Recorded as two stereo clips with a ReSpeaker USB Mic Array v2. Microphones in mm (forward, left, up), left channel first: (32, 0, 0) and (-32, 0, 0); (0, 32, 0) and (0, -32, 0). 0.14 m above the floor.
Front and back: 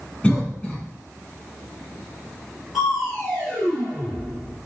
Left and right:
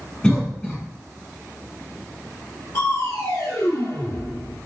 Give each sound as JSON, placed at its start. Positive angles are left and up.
{"t": 0.2, "sound": "a cough", "azimuth_deg": 35, "distance_m": 1.4}
{"t": 2.7, "sound": "crushing", "azimuth_deg": 95, "distance_m": 2.0}